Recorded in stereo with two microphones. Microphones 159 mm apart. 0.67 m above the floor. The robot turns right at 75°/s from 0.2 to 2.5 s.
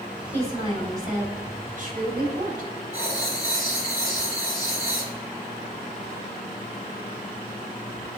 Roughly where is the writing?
Left.